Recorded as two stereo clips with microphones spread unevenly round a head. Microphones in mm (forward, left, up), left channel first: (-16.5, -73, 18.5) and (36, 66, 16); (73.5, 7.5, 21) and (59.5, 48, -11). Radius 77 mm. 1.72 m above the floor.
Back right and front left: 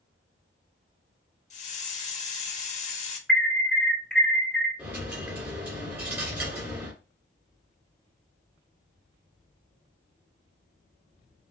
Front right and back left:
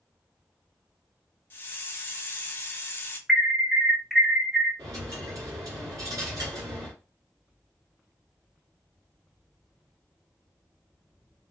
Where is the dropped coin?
135° left, 1.9 m.